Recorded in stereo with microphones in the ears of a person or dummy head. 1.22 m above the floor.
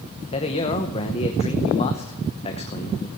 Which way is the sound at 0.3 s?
30° left (ahead or behind).